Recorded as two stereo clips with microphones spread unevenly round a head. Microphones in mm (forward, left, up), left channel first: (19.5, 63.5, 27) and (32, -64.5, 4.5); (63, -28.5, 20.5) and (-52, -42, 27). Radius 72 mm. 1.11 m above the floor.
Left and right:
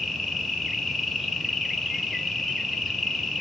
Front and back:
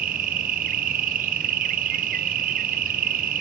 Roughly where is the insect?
Behind.